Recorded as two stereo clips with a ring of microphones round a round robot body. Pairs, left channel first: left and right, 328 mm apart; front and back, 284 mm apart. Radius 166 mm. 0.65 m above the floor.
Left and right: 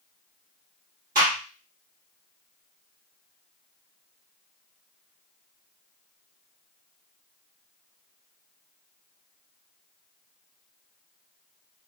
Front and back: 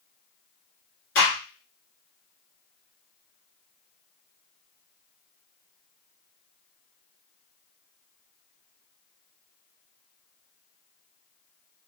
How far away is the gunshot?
About 1.8 m.